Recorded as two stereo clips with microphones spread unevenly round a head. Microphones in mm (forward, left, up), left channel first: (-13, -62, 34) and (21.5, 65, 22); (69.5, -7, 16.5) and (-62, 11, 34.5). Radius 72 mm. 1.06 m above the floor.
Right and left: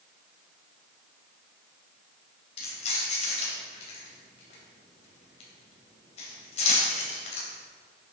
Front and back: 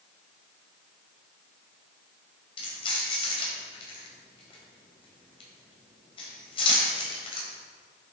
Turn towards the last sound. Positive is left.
turn(degrees=-60)